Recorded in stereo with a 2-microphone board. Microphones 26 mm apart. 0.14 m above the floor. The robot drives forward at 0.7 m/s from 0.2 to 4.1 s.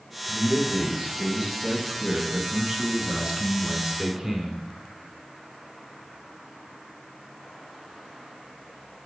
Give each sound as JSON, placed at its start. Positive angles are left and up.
{"t": 0.2, "sound": "a man speaking", "side_deg": -10, "distance_m": 2.5}